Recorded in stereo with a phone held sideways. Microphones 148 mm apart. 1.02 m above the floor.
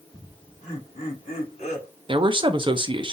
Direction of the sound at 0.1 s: 50° left (ahead or behind).